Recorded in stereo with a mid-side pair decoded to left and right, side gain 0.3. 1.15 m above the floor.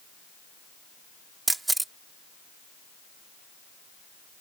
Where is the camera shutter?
30° right.